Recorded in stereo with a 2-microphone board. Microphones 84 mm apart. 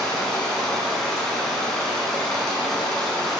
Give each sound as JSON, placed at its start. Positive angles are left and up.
{"t": 0.0, "sound": "running water", "side_deg": 5, "distance_m": 0.8}